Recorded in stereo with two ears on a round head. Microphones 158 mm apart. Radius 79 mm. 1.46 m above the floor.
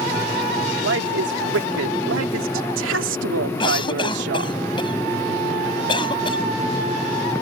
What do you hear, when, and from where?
0.8 s a woman speaking: 70° right (ahead or behind); by 4.6 s 65° right (ahead or behind)
3.6 s a cough: 30° left (ahead or behind)